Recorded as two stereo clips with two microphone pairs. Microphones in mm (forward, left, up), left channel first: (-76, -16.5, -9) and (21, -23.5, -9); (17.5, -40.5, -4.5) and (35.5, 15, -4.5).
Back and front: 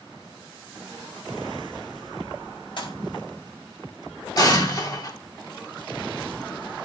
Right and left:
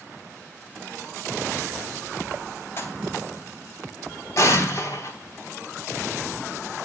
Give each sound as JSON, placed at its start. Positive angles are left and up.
{"t": 2.8, "sound": "a pop", "azimuth_deg": -155, "distance_m": 3.5}
{"t": 4.4, "sound": "an explosion", "azimuth_deg": -135, "distance_m": 3.0}